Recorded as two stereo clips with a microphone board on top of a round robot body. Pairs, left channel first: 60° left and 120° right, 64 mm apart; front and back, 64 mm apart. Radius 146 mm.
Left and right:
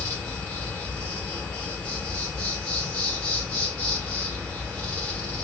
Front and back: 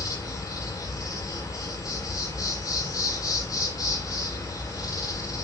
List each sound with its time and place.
0.0 s an insect: straight ahead, 8 m